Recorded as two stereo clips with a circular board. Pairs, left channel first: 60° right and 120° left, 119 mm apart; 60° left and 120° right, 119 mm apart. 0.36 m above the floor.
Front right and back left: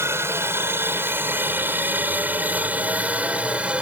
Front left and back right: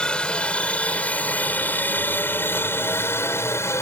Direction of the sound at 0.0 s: 130° left.